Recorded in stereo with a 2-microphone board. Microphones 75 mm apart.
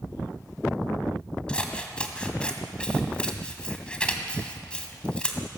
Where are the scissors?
15° left (ahead or behind), 2.0 m.